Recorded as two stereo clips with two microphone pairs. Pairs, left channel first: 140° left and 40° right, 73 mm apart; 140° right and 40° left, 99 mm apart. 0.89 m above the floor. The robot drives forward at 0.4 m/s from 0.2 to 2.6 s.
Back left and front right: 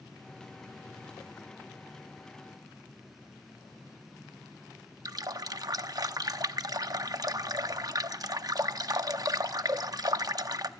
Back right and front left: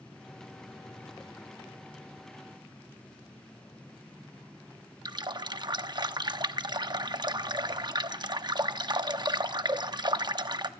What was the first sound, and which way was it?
A running tap, 5° right.